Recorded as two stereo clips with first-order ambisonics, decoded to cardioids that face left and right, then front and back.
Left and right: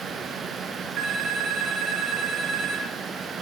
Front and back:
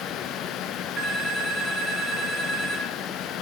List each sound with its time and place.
1.0 s a phone ringing: 130° right, 2 m